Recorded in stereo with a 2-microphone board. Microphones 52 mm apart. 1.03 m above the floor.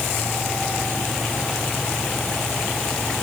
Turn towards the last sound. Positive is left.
No sound to turn to.